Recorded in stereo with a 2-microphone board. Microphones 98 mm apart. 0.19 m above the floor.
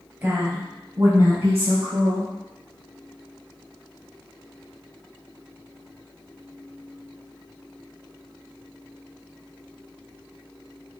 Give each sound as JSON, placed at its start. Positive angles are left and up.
{"t": 0.2, "sound": "a woman speaking", "side_deg": -20, "distance_m": 3.0}